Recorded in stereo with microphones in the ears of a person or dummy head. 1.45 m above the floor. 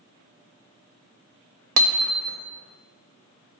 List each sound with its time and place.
1.8 s hammering: 75° right (ahead or behind), 0.9 m